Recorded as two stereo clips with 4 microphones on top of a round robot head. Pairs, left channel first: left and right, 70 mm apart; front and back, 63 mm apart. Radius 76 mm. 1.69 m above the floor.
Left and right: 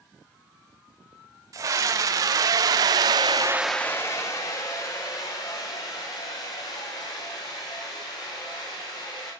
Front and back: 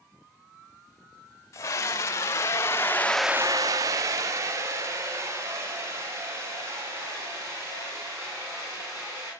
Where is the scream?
55° right, 1.8 m; by 9.3 s 135° left, 5.5 m.